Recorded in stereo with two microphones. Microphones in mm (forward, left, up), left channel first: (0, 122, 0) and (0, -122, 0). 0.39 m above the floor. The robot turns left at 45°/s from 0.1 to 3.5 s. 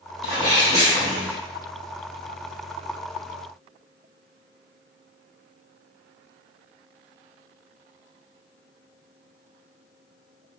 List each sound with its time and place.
0.2 s a sneeze: 25° left (ahead or behind), 1.4 m